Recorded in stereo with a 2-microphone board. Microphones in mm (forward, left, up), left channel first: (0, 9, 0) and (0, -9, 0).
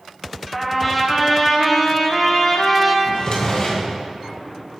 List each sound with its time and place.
0.5 s a trumpet: centre (ahead or behind), 0.9 m
3.0 s a drawer: 35° left (ahead or behind), 2 m